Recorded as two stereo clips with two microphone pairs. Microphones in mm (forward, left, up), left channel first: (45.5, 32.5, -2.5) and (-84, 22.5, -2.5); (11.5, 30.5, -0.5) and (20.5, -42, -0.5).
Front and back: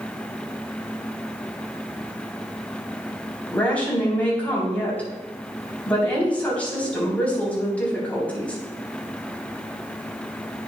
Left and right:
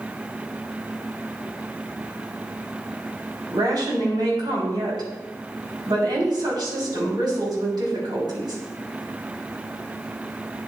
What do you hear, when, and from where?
3.5 s a woman speaking: 75° right, 3.5 m